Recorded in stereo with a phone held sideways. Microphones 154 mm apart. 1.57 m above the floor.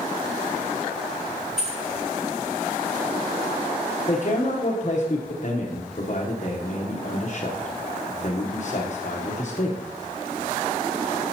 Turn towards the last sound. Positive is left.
turn(degrees=50)  # may be behind; listen again after turning